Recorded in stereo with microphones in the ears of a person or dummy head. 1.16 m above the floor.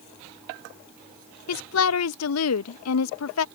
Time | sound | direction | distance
1.5 | a woman speaking | 85° left | ?